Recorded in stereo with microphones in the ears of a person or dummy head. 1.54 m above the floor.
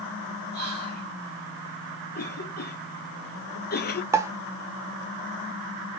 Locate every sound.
0.5 s whispering: 50° left (ahead or behind), 6 m
2.1 s a cough: 50° left (ahead or behind), 0.7 m
4.1 s a pop: 15° right (ahead or behind), 0.5 m